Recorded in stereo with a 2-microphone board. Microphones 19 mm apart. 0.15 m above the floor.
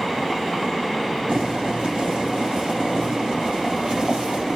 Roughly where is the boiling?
Right.